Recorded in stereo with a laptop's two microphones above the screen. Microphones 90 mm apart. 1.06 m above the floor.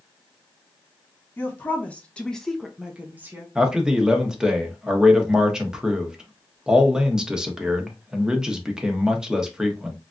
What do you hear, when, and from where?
1.4 s a woman speaking: 20° left (ahead or behind), 1.2 m; by 3.5 s 25° right (ahead or behind), 0.7 m
3.5 s a man speaking: 5° right (ahead or behind), 0.9 m